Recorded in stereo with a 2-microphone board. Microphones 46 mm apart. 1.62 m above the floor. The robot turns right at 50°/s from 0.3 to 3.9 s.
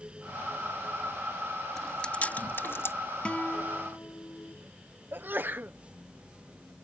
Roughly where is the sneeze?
Right.